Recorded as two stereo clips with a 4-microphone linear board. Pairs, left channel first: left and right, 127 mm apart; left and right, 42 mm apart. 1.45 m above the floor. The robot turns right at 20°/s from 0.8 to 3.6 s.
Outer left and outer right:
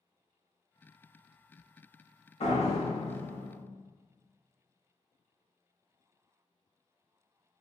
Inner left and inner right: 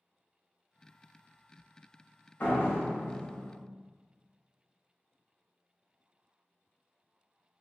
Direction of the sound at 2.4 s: 55° left (ahead or behind).